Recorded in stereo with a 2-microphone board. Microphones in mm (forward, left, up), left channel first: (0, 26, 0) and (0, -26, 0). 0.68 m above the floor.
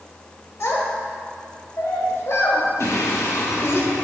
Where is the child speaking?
60° left (ahead or behind), 1.6 m.